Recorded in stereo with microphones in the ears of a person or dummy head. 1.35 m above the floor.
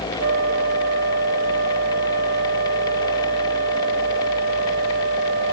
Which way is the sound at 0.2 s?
55° right (ahead or behind).